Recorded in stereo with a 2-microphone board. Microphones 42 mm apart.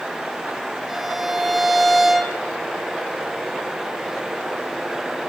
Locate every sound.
0.9 s a violin: centre (ahead or behind), 1.5 m